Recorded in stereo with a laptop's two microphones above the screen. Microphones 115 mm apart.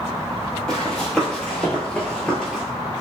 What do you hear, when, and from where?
0.7 s running footsteps: 5° left (ahead or behind), 1.5 m